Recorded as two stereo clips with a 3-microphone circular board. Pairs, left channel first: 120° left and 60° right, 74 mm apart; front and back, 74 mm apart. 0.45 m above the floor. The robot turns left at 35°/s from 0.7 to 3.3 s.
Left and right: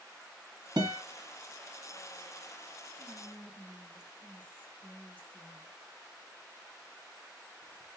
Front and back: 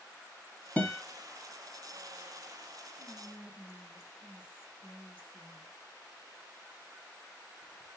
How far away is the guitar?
About 1.0 m.